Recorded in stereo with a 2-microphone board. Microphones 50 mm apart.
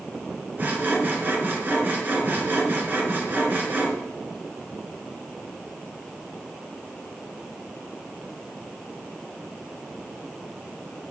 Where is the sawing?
40° right (ahead or behind), 2.5 m.